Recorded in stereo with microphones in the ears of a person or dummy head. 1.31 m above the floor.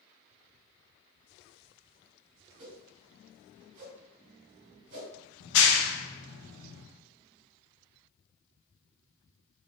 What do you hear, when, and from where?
2.6 s a whoosh: 50° right (ahead or behind), 1.8 m
5.4 s a clap: 75° left (ahead or behind), 0.7 m